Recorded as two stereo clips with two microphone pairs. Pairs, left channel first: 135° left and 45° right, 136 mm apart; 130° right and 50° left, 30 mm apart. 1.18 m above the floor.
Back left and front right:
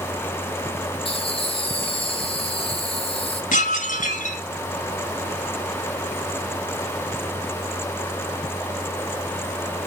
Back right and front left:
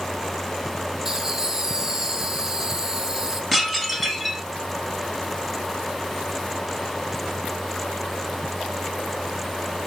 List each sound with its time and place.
1.1 s laughter: 120° left, 0.9 m
3.5 s dishes clattering: 155° left, 2.0 m